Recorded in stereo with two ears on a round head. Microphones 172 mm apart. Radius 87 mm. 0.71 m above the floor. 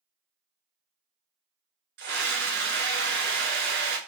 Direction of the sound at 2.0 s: 55° right (ahead or behind).